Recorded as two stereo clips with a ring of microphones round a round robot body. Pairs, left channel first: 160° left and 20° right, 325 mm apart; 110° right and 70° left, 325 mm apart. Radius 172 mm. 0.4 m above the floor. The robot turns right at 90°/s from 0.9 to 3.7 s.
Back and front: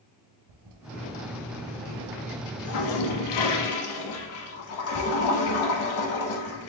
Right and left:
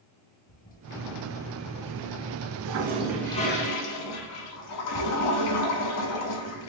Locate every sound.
0.5 s a toilet flushing: 50° right, 0.6 m; by 6.7 s 155° right, 0.6 m